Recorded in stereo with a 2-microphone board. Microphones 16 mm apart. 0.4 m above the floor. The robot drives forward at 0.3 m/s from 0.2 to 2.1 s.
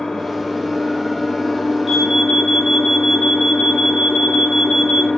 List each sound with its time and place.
0.0 s an engine running: 80° left, 1.1 m; by 5.2 s 65° left (ahead or behind), 1.2 m
1.9 s an alarm: 10° right (ahead or behind), 0.7 m